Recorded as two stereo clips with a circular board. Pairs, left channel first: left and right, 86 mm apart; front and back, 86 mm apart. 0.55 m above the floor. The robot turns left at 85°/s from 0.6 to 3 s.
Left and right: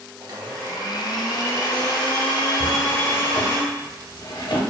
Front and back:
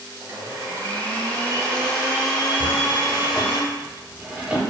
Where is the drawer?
140° left, 0.8 m; by 4.6 s 105° left, 0.8 m.